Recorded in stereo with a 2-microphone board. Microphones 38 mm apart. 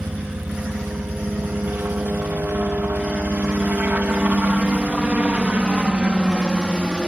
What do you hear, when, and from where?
0.0 s a helicopter: 55° right (ahead or behind); by 7.1 s 20° right (ahead or behind)